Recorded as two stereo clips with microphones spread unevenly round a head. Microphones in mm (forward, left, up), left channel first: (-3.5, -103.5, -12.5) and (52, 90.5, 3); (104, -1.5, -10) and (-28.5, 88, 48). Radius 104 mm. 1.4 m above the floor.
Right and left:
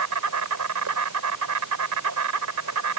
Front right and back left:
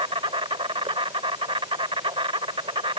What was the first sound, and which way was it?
An insect, 90° left.